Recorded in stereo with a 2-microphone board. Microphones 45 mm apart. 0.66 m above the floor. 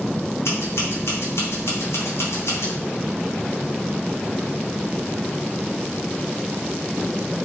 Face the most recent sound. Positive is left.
turn(degrees=70)  # may be behind; listen again after turning